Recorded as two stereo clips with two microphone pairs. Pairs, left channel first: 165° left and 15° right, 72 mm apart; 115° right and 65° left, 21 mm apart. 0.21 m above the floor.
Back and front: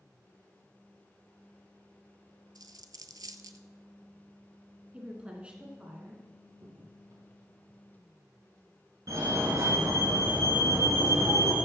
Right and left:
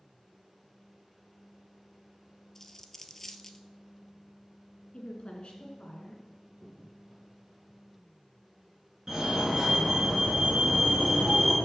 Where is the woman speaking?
85° right, 2.5 m.